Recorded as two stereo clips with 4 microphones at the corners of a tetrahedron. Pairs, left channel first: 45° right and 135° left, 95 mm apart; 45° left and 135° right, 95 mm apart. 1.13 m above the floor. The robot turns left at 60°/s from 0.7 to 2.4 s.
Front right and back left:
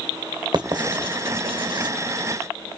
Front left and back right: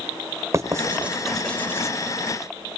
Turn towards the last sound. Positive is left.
turn(degrees=70)